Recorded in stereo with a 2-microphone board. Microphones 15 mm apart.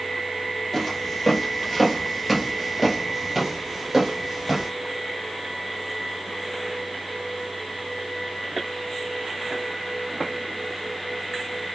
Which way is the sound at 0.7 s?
10° left (ahead or behind).